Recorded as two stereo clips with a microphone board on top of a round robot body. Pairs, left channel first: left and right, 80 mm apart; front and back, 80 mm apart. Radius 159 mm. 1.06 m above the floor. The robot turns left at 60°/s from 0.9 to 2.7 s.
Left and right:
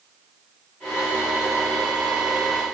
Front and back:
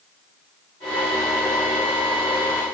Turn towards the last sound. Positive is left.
No sound to turn to.